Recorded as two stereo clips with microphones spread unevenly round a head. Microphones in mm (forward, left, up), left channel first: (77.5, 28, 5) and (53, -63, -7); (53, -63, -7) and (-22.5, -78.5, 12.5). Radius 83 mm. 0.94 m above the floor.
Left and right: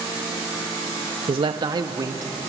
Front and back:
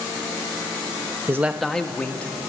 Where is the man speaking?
105° right, 0.7 m; by 2.3 s 60° right, 2 m.